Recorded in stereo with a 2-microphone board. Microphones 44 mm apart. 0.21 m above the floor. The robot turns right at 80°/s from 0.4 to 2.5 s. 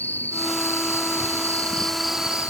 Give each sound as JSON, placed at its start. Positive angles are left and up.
{"t": 0.0, "sound": "an insect", "azimuth_deg": 50}